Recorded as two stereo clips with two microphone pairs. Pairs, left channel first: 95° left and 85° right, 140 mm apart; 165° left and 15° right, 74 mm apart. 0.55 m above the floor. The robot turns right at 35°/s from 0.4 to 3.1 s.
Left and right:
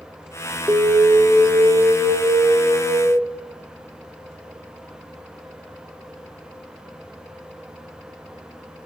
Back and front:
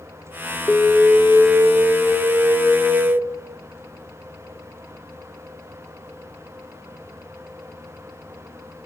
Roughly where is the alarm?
Behind right.